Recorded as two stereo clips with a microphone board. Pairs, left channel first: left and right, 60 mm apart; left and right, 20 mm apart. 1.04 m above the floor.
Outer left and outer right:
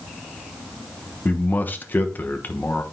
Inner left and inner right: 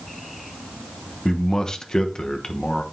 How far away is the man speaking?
About 1.0 m.